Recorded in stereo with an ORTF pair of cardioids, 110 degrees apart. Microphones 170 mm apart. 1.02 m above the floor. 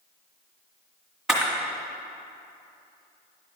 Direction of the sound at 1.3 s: 5° right.